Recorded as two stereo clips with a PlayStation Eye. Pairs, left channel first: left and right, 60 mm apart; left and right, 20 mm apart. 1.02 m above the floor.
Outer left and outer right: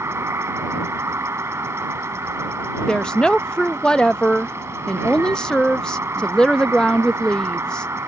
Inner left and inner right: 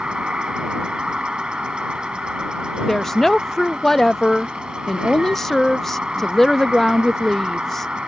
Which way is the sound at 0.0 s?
50° right (ahead or behind).